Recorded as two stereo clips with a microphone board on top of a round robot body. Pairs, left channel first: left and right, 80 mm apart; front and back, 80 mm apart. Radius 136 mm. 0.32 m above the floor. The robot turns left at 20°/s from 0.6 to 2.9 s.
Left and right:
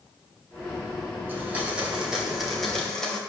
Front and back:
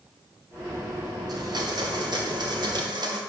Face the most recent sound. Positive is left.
turn(degrees=175)